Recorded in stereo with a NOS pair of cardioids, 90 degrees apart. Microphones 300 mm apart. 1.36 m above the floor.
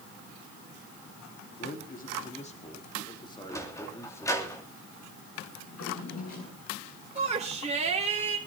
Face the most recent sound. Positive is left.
turn(degrees=-20)